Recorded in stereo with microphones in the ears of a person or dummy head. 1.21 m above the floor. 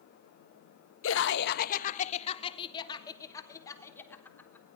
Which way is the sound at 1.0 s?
75° left (ahead or behind).